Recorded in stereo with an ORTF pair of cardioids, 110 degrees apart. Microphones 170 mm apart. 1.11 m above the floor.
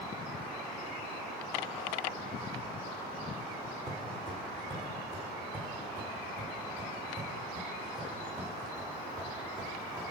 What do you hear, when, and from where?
3.9 s footsteps: 20° right, 4 m; by 10.0 s 25° right, 7.5 m